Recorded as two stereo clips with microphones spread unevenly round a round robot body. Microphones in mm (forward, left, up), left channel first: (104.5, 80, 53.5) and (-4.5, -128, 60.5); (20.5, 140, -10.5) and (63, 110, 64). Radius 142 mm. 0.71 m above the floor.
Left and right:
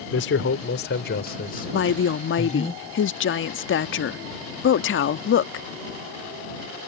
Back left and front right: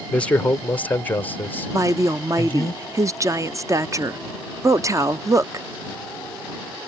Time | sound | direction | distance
0.1 | a man speaking | 105° left | ?
1.7 | a woman speaking | 30° left | ?